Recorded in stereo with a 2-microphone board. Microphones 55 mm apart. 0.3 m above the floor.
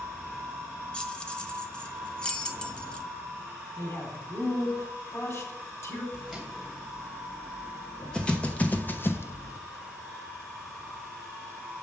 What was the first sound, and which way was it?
Keys jangling, 15° left (ahead or behind).